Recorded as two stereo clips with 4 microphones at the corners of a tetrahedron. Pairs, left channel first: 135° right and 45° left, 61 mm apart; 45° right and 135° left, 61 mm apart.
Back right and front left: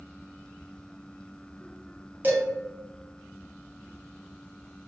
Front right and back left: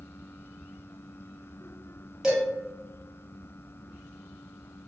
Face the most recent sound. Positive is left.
turn(degrees=60)